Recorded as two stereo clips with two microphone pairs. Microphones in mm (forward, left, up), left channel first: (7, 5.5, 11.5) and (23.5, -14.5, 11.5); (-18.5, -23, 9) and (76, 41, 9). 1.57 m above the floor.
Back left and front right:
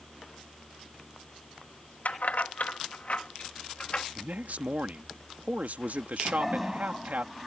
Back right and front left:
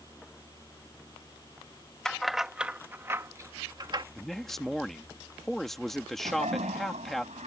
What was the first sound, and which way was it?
Keys jangling, 130° left.